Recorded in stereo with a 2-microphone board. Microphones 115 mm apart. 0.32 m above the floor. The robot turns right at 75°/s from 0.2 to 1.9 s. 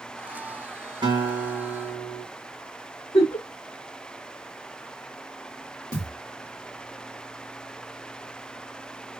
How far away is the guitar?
About 2 m.